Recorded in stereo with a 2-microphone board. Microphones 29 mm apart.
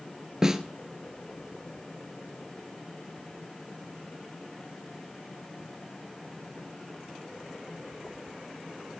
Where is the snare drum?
20° right (ahead or behind), 1.2 m.